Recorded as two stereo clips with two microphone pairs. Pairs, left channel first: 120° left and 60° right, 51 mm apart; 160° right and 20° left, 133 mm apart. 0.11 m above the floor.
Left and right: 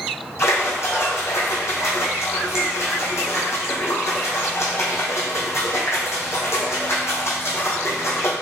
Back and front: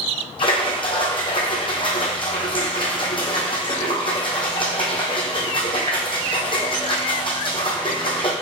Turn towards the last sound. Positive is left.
turn(degrees=150)